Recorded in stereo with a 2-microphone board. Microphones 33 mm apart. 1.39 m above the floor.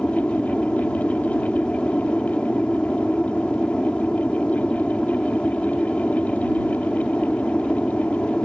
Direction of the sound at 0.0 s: 35° left (ahead or behind).